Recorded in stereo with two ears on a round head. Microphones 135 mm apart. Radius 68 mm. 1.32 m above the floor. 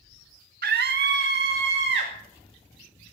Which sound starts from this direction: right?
A scream, at 0.6 s.